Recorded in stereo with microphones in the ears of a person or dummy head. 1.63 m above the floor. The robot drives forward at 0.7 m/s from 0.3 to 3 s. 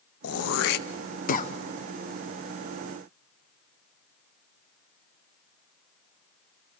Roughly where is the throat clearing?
Left.